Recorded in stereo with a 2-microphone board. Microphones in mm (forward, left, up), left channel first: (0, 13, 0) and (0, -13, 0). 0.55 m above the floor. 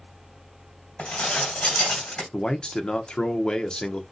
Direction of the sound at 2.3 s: 40° left (ahead or behind).